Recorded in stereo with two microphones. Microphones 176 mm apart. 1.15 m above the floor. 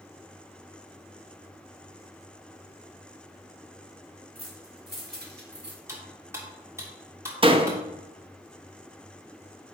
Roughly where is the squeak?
No squeak in this recording.